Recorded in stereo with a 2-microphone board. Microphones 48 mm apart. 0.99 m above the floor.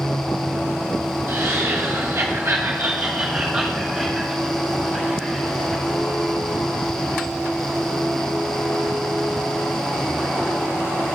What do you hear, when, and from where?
1.3 s laughter: 60° right (ahead or behind), 1.0 m; by 5.8 s 15° left (ahead or behind), 1.7 m